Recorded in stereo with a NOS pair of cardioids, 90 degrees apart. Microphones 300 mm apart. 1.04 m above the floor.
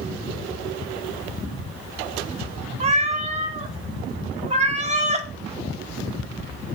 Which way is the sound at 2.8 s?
25° right.